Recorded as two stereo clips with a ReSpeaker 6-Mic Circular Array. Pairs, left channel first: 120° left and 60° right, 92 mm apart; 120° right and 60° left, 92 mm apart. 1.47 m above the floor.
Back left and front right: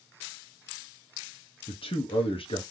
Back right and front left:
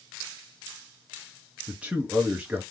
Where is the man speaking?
135° left, 0.8 m.